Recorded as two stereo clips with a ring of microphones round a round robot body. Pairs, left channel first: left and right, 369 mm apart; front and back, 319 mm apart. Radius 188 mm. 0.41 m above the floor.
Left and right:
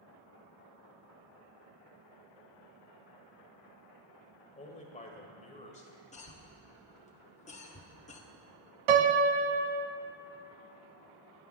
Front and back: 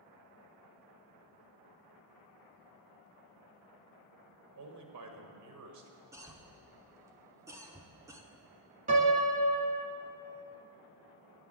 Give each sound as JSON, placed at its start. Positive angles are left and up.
{"t": 4.5, "sound": "a man speaking", "azimuth_deg": 160, "distance_m": 1.6}
{"t": 6.1, "sound": "a cough", "azimuth_deg": 115, "distance_m": 0.9}
{"t": 8.9, "sound": "a piano", "azimuth_deg": -110, "distance_m": 0.8}